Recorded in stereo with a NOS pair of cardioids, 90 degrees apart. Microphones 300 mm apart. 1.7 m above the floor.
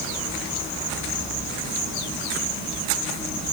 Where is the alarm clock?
I don't hear an alarm clock.